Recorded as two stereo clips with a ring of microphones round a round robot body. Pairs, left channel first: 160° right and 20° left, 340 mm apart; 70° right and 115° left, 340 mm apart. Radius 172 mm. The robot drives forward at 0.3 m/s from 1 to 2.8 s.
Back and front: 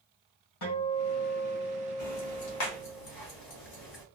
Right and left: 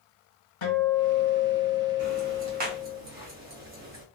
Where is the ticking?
175° left, 1.0 m.